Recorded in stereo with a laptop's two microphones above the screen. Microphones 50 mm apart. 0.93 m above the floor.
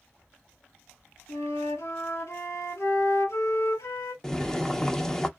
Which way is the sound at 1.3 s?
75° left (ahead or behind).